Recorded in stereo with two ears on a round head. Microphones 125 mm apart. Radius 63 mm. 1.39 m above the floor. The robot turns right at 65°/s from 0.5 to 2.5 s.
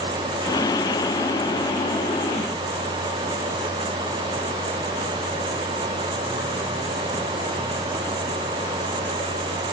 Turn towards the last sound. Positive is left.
No sound to turn to.